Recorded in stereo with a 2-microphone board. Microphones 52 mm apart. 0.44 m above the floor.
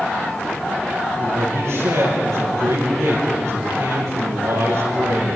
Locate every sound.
1.2 s a man speaking: 75° right (ahead or behind), 9 m